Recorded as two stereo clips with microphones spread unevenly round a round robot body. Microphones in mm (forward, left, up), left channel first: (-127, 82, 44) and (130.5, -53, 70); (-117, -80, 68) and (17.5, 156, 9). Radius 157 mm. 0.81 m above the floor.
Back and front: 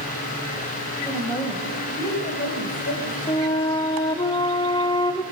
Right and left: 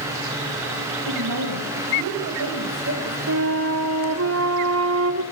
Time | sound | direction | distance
1.1 | a woman speaking | 70° left | 4.5 m
3.3 | a flute | 80° left | 2.5 m